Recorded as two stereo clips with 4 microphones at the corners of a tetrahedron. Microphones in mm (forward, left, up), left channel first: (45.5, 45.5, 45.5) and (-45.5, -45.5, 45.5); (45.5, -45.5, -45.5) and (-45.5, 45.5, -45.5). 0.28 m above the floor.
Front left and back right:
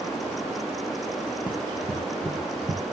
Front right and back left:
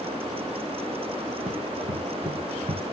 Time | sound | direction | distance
1.5 | running footsteps | 145° left | 0.9 m